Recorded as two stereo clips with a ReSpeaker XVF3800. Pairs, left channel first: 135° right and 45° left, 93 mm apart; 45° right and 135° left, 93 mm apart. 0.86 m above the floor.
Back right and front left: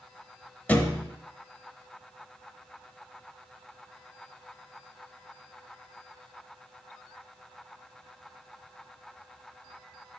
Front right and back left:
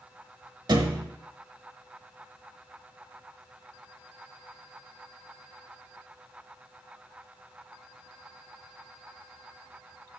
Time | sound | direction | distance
0.7 | a thud | 155° left | 0.9 m